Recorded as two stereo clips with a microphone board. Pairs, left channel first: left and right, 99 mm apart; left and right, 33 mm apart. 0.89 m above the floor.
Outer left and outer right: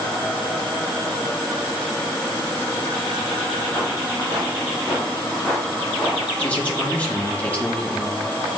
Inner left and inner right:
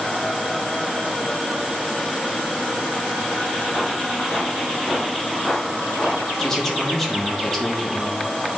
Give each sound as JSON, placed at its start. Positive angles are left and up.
{"t": 3.5, "sound": "footsteps", "side_deg": 20, "distance_m": 4.0}
{"t": 6.4, "sound": "a man speaking", "side_deg": 15, "distance_m": 1.6}